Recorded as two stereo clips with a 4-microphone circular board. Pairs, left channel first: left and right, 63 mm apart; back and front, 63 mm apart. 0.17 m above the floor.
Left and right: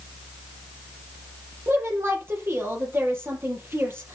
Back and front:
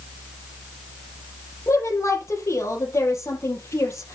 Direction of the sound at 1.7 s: 140° right.